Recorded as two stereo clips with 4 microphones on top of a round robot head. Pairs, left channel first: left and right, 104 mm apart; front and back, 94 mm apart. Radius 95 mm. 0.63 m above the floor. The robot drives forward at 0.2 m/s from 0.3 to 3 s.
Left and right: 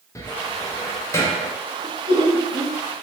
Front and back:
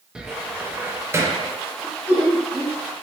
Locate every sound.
0.1 s a cupboard door: 105° left, 0.6 m; by 1.5 s 140° left, 0.6 m
1.8 s laughter: 115° right, 1.0 m; by 2.8 s 125° right, 1.0 m